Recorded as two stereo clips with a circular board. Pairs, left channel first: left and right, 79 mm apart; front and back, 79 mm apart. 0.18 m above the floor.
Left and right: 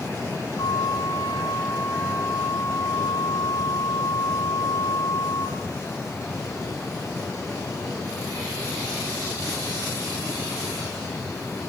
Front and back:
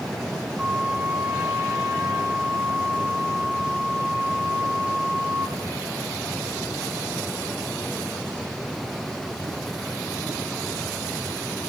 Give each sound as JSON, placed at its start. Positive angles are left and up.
{"t": 0.6, "sound": "a flute", "azimuth_deg": 105, "distance_m": 2.5}